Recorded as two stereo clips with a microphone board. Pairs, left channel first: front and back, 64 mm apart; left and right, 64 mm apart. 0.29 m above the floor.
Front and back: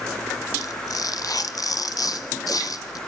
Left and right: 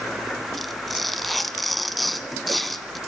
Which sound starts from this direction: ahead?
Tearing paper, at 0.6 s.